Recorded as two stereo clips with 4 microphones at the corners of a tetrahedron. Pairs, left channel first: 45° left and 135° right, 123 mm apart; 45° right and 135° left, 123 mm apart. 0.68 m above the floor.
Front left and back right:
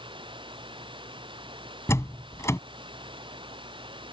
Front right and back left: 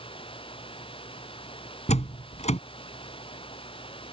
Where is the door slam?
25° right.